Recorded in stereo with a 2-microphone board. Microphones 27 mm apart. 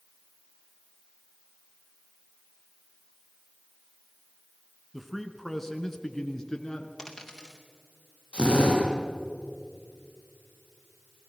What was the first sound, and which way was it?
A man speaking, centre (ahead or behind).